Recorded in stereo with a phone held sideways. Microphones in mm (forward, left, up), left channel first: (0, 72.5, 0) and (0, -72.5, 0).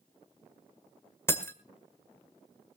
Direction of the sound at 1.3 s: 15° left (ahead or behind).